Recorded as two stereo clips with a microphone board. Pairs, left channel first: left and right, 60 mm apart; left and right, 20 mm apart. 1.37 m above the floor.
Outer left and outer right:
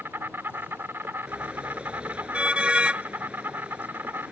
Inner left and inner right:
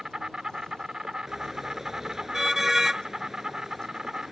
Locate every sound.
0.0 s an insect: 35° right (ahead or behind)
1.3 s a car horn: 20° right (ahead or behind)